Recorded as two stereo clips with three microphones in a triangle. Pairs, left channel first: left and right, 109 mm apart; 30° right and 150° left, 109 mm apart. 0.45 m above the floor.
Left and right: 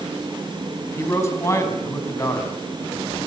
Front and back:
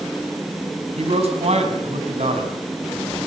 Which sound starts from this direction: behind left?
A man speaking, at 1.0 s.